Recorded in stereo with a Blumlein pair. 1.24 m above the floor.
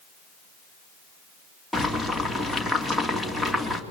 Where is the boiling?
5° right, 3 m.